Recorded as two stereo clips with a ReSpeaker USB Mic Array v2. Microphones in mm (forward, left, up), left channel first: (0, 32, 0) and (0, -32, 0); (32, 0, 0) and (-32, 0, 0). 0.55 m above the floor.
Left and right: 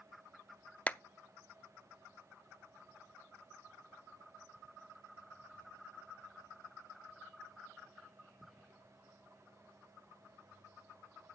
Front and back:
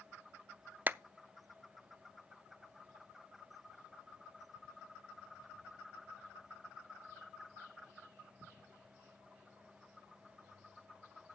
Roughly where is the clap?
Behind left.